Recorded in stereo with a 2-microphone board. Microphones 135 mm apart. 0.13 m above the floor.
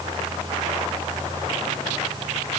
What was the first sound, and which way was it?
Only background noise.